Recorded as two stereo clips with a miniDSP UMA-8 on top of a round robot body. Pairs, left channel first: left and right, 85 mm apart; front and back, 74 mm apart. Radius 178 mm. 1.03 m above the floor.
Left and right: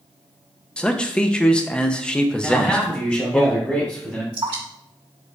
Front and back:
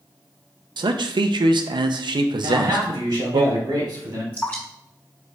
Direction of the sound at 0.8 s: 170° left.